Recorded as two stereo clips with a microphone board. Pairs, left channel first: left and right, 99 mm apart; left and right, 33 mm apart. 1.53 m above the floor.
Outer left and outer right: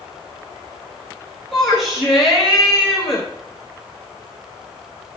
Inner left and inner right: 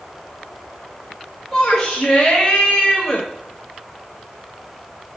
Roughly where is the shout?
Centre.